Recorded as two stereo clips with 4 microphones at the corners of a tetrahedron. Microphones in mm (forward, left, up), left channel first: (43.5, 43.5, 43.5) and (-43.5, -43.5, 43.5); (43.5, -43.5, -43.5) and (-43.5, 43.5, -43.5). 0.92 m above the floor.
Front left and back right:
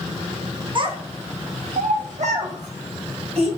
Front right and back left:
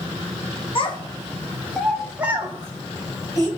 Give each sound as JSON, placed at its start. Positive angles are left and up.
{"t": 0.8, "sound": "a child speaking", "azimuth_deg": -85, "distance_m": 0.7}